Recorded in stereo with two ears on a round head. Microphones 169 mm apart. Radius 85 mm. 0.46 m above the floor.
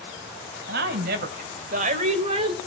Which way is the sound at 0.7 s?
60° right (ahead or behind).